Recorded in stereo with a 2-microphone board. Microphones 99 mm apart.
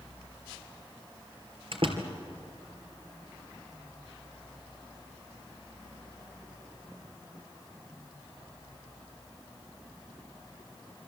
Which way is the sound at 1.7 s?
60° right (ahead or behind).